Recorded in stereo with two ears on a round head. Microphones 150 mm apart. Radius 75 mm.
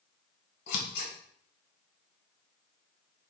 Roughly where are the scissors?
Left.